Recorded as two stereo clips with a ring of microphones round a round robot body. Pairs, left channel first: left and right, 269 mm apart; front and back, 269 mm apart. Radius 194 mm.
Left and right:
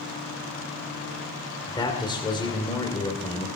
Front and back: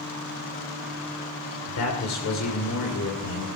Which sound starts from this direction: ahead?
A man speaking, at 1.7 s.